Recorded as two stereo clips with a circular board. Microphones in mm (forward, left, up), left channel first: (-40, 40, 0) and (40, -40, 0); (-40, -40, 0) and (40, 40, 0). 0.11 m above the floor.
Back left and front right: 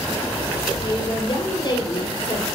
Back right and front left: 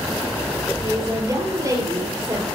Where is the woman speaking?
95° left, 2 m.